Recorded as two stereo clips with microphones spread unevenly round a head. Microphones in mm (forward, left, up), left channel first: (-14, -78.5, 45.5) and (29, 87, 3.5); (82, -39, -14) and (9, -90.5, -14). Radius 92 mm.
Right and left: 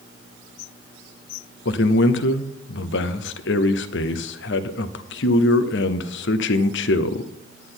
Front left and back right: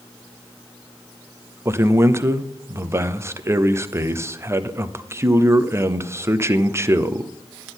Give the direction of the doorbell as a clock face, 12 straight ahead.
No doorbell in this recording.